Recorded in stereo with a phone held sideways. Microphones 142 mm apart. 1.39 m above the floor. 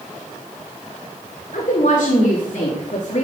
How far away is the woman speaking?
About 3.5 m.